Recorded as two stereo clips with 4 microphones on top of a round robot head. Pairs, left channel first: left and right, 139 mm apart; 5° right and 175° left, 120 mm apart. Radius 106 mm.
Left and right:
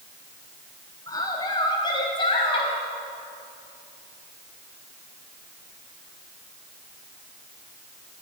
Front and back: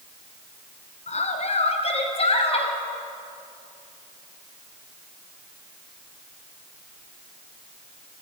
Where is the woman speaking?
20° left, 3.5 m; by 2.8 s 30° left, 4 m.